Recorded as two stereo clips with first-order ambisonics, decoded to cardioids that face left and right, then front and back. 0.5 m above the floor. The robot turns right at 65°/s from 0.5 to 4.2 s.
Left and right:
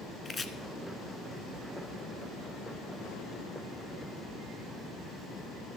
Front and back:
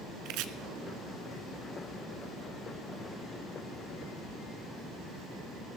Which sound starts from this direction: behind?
Chopping, at 0.2 s.